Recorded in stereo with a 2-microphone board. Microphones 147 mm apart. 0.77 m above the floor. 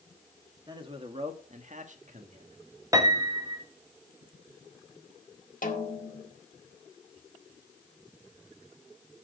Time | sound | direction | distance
0.7 | a man speaking | 30° right (ahead or behind) | 1.7 m
2.9 | a piano | 25° right (ahead or behind) | 1.3 m
5.6 | a snare drum | 65° left (ahead or behind) | 1.8 m